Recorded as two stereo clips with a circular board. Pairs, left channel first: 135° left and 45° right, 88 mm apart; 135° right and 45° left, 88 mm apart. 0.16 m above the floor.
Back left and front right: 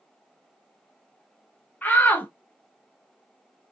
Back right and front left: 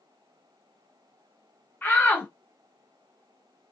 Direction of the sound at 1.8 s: Straight behind.